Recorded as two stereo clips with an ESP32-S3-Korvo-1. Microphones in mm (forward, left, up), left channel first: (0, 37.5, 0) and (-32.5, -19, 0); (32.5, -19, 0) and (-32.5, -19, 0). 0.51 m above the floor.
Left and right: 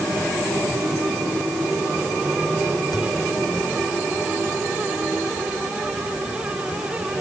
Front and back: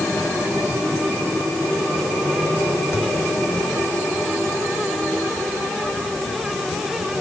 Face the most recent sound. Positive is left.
turn(degrees=45)